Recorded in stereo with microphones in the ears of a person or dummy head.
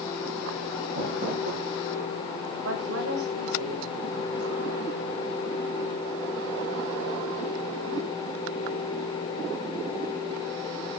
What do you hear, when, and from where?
0.9 s crumpling: 55° right (ahead or behind), 9.5 m
2.6 s a woman speaking: 85° right, 5.5 m